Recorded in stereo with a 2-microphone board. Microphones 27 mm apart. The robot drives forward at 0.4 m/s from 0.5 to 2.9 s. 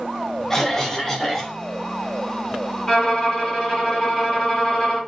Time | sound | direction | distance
0.5 | a cough | 15° left (ahead or behind) | 0.9 m
2.9 | a violin | 20° left (ahead or behind) | 2.0 m